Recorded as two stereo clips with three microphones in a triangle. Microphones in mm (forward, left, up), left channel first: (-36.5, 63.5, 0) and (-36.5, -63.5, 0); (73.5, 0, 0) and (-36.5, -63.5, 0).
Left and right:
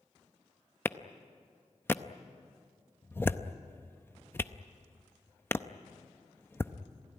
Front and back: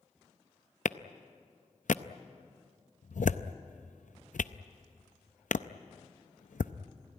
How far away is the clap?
About 0.6 m.